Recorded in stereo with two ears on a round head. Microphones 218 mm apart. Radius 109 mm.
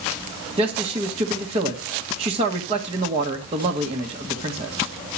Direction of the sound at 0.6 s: 25° right (ahead or behind).